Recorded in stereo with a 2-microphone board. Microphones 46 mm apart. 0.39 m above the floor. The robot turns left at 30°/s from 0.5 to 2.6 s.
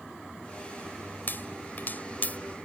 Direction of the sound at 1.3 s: 50° left (ahead or behind).